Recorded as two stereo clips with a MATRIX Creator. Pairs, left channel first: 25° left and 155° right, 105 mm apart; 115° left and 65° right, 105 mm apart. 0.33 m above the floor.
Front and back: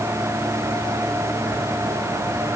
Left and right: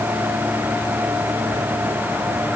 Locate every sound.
Only background noise.